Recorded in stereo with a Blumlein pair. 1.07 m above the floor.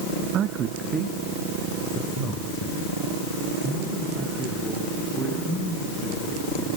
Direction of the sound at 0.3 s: 35° right.